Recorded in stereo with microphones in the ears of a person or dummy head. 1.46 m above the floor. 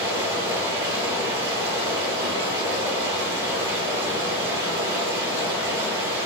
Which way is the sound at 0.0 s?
20° right (ahead or behind).